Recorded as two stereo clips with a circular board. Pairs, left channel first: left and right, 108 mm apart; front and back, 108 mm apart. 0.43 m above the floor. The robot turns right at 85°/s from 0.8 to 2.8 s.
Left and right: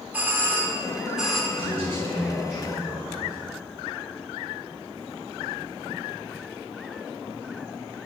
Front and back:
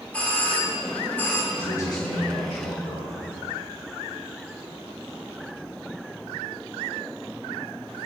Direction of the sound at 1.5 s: 65° right.